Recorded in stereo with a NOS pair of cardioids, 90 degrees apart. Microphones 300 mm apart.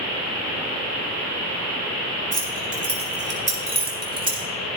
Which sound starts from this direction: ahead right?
Keys jangling, at 2.3 s.